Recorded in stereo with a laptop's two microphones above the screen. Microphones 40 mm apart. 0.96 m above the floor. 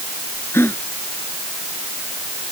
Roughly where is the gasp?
Left.